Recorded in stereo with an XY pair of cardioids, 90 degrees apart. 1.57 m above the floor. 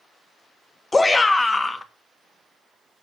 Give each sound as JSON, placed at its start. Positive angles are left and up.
{"t": 0.9, "sound": "a shout", "azimuth_deg": 25, "distance_m": 1.6}